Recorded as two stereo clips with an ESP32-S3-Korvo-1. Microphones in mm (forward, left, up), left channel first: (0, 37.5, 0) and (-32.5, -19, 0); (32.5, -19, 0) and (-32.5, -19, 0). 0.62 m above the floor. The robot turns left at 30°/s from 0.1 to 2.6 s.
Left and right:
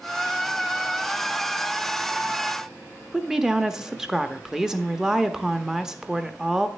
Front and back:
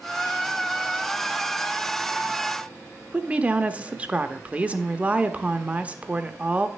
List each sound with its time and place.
3.1 s a woman speaking: 175° left, 0.6 m